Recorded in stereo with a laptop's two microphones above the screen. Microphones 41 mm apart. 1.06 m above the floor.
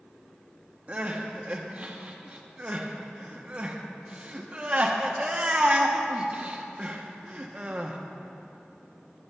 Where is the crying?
30° right (ahead or behind), 0.7 m.